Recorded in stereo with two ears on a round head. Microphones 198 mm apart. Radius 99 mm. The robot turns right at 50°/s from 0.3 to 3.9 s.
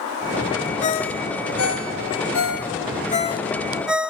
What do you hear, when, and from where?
0.8 s a ringtone: 30° left (ahead or behind), 1.1 m; by 4.1 s 5° right (ahead or behind), 1.1 m